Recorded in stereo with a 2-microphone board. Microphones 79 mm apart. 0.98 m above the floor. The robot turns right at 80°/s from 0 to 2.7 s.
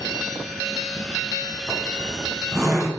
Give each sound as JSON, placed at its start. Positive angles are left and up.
{"t": 1.7, "sound": "a zipper", "side_deg": 45, "distance_m": 3.5}